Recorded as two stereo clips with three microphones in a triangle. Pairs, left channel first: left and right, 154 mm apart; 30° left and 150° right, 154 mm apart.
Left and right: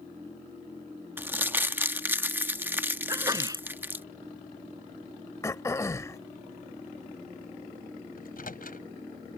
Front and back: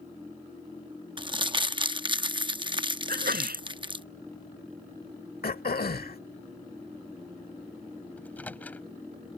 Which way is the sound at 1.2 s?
155° right.